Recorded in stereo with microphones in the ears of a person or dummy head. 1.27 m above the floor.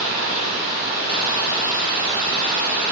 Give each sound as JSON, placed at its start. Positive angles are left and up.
{"t": 0.0, "sound": "running water", "side_deg": -40, "distance_m": 0.9}